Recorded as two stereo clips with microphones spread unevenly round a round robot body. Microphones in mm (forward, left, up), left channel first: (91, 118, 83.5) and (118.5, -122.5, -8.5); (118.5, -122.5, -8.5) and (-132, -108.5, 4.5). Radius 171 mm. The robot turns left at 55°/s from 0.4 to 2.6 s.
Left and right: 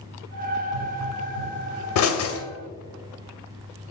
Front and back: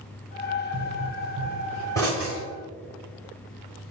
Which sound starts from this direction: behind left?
A pop, at 0.7 s.